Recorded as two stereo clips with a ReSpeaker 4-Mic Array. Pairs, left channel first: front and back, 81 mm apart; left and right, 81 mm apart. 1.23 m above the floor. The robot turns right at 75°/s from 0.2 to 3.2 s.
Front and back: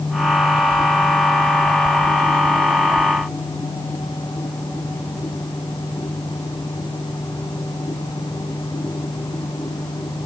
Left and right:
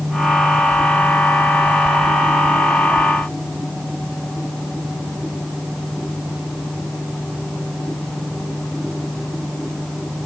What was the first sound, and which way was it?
Only background noise.